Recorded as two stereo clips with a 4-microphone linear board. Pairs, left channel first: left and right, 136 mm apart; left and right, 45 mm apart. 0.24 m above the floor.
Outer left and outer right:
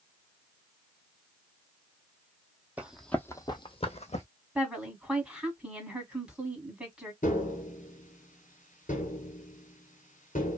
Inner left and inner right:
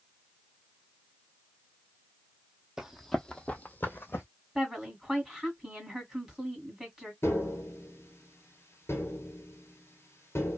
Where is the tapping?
70° left (ahead or behind), 1.0 m.